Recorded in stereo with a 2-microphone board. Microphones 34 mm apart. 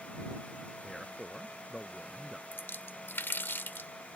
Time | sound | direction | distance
0.8 | a man speaking | 10° right (ahead or behind) | ?
2.5 | a splash | 70° left (ahead or behind) | ?